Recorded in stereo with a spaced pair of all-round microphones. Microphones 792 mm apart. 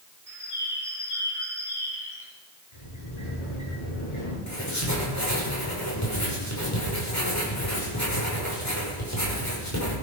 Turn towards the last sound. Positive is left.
turn(degrees=20)  # may be behind; listen again after turning